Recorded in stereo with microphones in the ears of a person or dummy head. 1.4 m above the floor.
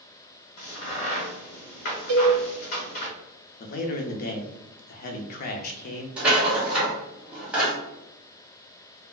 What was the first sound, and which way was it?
A crack, 50° left (ahead or behind).